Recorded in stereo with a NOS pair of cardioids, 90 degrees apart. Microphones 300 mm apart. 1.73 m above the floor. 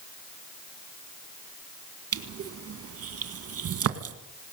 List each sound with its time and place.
2.1 s crushing: 50° right, 2 m